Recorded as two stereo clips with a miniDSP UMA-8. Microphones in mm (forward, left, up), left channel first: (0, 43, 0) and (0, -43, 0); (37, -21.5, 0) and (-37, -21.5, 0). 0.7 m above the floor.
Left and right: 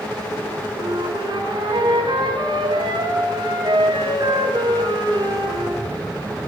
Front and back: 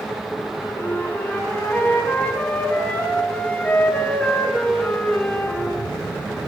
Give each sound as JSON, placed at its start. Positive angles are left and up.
{"t": 0.8, "sound": "a flute", "azimuth_deg": -70, "distance_m": 4.5}